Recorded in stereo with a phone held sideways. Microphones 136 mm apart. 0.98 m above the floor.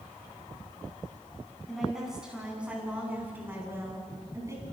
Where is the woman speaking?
Centre (ahead or behind), 8 m; by 4.6 s 25° right (ahead or behind), 8 m.